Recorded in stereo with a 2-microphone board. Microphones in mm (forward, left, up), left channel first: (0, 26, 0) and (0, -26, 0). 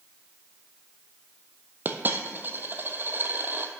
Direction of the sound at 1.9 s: 45° right (ahead or behind).